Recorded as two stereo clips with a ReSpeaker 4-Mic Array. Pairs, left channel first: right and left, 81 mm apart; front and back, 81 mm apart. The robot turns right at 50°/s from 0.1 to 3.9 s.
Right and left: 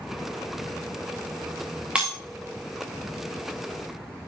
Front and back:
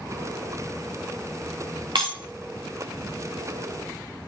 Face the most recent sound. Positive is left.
turn(degrees=-95)